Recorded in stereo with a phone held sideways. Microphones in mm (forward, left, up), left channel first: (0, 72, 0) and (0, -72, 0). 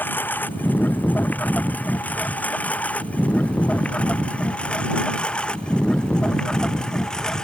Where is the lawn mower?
15° left (ahead or behind); by 7.5 s 5° left (ahead or behind).